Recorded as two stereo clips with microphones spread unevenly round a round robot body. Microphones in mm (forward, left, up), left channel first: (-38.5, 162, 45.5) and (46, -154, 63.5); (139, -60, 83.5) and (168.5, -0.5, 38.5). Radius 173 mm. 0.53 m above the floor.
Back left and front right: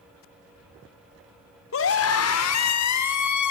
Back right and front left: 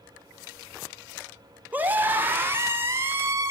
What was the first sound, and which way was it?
A scream, 65° left.